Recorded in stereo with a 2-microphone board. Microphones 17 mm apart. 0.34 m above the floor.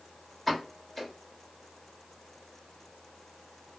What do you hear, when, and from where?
0.5 s a pop: 15° left (ahead or behind), 1.1 m